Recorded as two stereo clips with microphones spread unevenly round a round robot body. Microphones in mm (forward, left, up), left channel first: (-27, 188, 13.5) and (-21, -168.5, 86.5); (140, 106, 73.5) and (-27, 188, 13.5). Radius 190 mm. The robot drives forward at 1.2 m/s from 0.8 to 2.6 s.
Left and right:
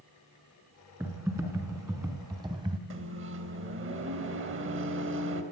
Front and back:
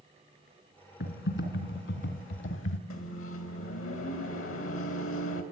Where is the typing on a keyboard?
5° right, 4 m; by 2.8 s 10° right, 2 m.